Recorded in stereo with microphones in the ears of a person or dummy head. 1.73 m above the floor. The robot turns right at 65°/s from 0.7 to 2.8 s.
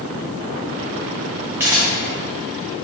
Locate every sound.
1.6 s a camera shutter: 10° right (ahead or behind), 0.5 m; by 1.9 s 25° right (ahead or behind), 0.5 m